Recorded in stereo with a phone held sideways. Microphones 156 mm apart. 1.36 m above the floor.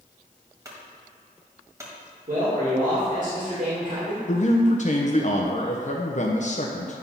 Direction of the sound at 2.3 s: 55° right (ahead or behind).